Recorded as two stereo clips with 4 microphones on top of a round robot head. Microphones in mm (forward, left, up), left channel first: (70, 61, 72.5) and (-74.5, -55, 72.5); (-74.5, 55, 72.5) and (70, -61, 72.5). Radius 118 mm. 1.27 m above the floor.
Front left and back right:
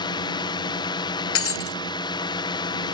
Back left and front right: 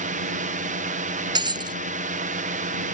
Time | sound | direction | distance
0.0 | a drone | 20° right | ?
1.4 | breaking glass | 30° left | ?